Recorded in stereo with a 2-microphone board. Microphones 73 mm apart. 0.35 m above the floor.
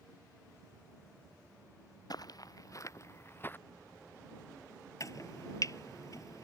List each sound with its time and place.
2.1 s footsteps: 60° left (ahead or behind); by 3.6 s 25° left (ahead or behind)
5.0 s chopping: 50° left (ahead or behind)